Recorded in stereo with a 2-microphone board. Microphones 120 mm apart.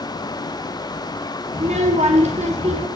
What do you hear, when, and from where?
1.5 s a child speaking: 70° right (ahead or behind), 2.5 m